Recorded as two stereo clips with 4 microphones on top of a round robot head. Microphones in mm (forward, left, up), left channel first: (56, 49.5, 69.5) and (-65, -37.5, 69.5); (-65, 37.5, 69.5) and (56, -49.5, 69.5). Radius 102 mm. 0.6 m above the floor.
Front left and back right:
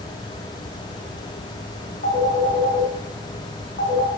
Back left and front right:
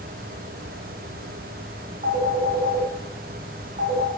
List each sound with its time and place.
2.0 s a phone ringing: 10° left, 4.5 m